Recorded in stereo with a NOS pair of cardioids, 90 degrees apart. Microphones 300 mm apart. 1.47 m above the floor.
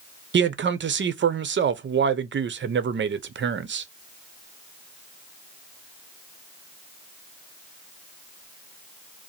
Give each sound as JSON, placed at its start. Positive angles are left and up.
{"t": 0.3, "sound": "a man speaking", "azimuth_deg": -40, "distance_m": 0.8}